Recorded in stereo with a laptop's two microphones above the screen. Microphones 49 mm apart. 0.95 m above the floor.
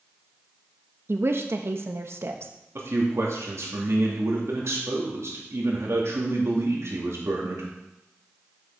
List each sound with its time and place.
1.1 s a woman speaking: 55° right (ahead or behind), 1.0 m
2.8 s a man speaking: 65° right (ahead or behind), 2 m